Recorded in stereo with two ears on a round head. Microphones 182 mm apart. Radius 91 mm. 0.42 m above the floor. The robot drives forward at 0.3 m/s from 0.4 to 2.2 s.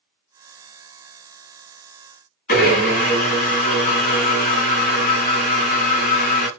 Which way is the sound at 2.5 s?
40° left (ahead or behind).